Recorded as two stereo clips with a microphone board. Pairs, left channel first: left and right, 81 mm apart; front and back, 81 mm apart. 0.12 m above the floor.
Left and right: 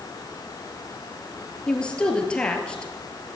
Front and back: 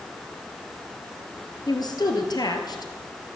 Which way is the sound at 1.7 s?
15° left.